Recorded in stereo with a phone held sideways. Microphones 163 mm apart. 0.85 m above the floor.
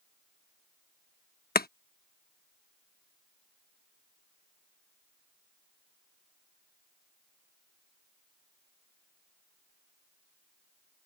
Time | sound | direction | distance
1.6 | chopping | 70° left (ahead or behind) | ?